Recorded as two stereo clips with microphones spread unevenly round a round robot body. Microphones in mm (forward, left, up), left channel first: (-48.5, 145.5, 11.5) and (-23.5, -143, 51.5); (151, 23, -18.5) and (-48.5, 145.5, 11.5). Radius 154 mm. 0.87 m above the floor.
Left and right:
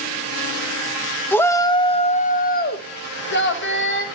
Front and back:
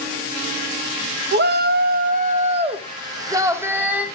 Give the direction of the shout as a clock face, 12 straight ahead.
7 o'clock.